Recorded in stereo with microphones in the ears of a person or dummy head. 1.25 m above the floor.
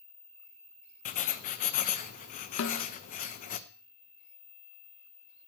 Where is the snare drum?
65° left (ahead or behind), 1.2 m.